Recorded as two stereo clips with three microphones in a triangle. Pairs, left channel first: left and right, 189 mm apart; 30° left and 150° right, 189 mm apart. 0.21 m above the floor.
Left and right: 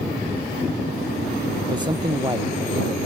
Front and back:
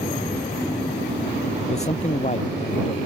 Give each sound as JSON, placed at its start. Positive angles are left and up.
{"t": 1.7, "sound": "a man speaking", "azimuth_deg": -25}